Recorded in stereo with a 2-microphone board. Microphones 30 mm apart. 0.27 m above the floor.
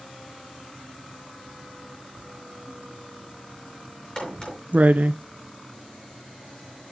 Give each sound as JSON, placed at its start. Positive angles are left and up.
{"t": 2.2, "sound": "writing", "side_deg": -60, "distance_m": 0.6}
{"t": 4.2, "sound": "a crack", "side_deg": 20, "distance_m": 5.0}